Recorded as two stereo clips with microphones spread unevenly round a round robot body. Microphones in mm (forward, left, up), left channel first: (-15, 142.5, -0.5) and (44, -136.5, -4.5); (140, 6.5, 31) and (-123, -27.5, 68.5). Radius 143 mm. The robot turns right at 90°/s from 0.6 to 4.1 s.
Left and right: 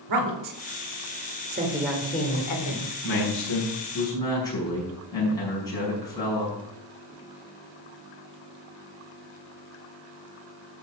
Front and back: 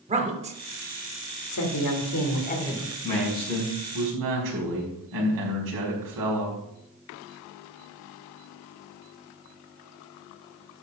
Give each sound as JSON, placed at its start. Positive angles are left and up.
{"t": 0.1, "sound": "a woman speaking", "azimuth_deg": -105, "distance_m": 2.0}
{"t": 3.0, "sound": "a man speaking", "azimuth_deg": 85, "distance_m": 5.0}